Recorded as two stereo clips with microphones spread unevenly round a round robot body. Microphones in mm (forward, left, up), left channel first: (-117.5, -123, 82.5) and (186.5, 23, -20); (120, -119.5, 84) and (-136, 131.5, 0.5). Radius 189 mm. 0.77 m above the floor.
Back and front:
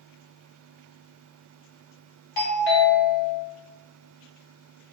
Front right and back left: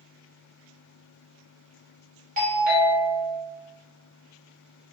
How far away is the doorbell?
About 1.2 m.